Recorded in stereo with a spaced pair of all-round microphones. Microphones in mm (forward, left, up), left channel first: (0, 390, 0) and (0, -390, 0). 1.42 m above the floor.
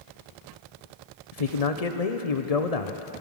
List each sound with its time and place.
1.3 s a man speaking: 50° left (ahead or behind), 0.9 m